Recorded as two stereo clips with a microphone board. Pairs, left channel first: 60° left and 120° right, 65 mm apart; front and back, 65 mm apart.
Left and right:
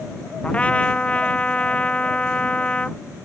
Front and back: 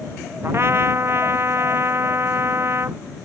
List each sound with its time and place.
0.4 s a trumpet: 130° left